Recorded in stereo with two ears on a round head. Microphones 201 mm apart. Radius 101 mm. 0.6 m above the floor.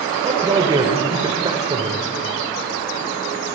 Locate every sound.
0.2 s a man speaking: 20° right (ahead or behind), 1.7 m